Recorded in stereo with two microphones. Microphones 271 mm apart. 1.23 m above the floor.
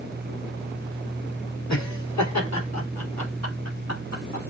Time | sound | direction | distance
1.7 | laughter | 85° left | 3 m